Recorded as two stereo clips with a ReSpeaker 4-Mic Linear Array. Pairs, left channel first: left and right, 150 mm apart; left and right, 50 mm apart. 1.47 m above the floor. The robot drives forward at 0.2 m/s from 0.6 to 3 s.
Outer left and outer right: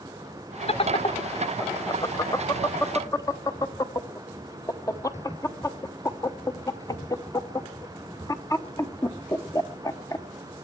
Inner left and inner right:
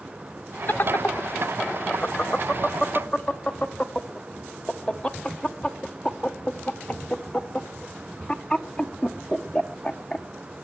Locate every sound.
0.7 s laughter: 40° left (ahead or behind), 0.5 m; by 10.2 s 20° left (ahead or behind), 0.9 m